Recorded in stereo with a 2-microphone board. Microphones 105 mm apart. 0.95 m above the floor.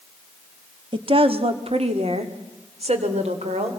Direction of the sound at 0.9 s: 50° right (ahead or behind).